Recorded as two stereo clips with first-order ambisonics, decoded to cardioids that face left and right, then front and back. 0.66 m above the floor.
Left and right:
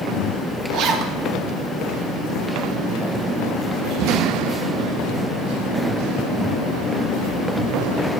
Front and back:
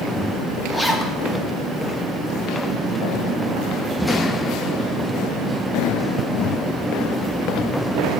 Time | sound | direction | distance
0.7 | a zipper | 80° right | 0.8 m